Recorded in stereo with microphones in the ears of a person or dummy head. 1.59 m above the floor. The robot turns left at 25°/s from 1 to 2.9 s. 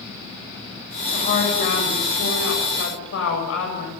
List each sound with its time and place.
1.1 s a woman speaking: 140° left, 8 m; by 3.9 s 95° left, 8 m